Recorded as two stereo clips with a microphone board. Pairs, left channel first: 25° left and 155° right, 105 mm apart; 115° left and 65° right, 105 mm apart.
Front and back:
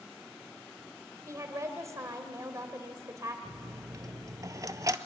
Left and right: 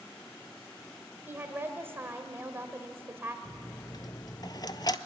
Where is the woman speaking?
120° right, 1.4 m.